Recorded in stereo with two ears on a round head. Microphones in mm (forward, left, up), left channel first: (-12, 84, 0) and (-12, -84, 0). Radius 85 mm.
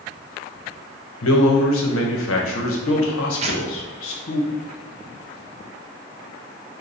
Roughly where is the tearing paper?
Right.